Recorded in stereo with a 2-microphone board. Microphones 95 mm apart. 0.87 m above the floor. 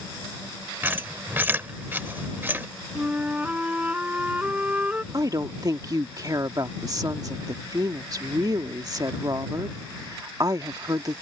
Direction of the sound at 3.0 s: 15° right (ahead or behind).